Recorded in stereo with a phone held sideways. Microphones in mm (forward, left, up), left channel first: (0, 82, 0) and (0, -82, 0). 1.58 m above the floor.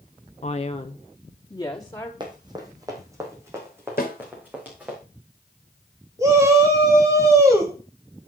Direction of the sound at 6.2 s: 20° right (ahead or behind).